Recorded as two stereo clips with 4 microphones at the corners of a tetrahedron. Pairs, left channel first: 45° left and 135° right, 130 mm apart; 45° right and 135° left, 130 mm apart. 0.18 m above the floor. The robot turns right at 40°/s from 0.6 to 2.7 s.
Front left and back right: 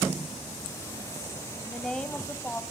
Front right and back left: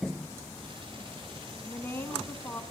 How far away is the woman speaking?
About 1.5 m.